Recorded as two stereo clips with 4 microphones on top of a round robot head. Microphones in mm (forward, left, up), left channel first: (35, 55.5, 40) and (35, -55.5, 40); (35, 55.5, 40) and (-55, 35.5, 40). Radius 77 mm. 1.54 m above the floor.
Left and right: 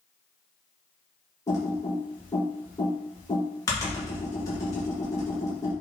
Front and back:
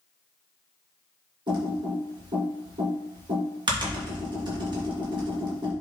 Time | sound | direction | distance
1.5 | typing on a keyboard | 155° left | 2.5 m